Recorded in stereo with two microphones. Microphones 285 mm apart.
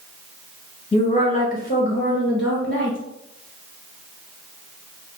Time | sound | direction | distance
0.9 | a woman speaking | 20° left (ahead or behind) | 1.2 m